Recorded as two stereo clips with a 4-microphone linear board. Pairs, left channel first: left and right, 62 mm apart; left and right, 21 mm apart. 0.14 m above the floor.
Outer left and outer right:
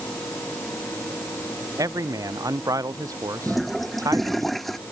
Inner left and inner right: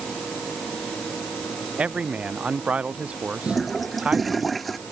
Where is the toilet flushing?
Centre (ahead or behind).